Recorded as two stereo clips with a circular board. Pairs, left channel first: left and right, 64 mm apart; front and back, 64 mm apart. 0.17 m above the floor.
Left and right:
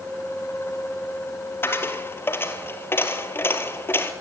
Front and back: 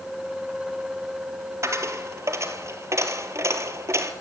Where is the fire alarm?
No fire alarm in this recording.